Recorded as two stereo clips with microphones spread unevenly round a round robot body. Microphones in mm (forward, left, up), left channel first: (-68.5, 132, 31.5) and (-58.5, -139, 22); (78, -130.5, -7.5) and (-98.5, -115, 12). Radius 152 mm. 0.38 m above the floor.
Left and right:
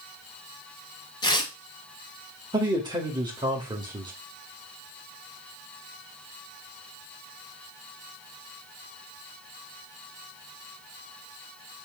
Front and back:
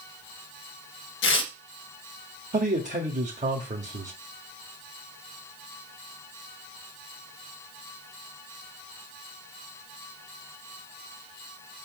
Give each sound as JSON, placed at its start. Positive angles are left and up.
{"t": 1.2, "sound": "tearing paper", "azimuth_deg": 15, "distance_m": 1.0}
{"t": 2.5, "sound": "a man speaking", "azimuth_deg": -155, "distance_m": 1.7}